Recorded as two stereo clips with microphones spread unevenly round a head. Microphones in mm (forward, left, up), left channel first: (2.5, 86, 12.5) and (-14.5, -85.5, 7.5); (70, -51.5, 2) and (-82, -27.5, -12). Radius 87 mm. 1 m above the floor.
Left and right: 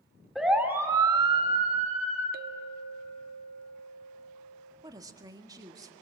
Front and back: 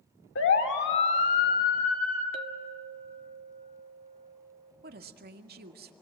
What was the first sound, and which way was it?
A siren, 5° right.